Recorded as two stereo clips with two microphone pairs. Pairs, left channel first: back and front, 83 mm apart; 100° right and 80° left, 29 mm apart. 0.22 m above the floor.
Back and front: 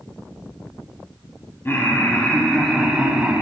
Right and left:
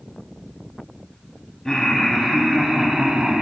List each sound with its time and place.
1.6 s laughter: 155° right, 1.4 m; by 3.4 s 65° left, 1.5 m